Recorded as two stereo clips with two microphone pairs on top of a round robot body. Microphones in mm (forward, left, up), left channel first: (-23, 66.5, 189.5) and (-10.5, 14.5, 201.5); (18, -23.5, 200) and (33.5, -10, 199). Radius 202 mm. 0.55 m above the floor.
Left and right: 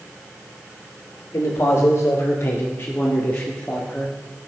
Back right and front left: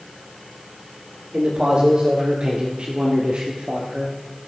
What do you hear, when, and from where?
1.3 s a man speaking: 80° left, 3 m; by 4.2 s 30° left, 2.5 m